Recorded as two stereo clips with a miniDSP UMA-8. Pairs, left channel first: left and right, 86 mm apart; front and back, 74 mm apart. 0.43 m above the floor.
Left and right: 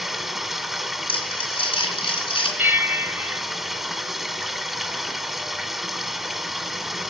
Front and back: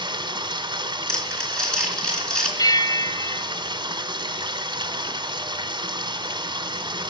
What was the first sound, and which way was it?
Running water, 175° right.